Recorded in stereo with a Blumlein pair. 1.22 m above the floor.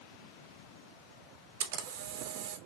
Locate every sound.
1.6 s a camera shutter: 55° right, 0.7 m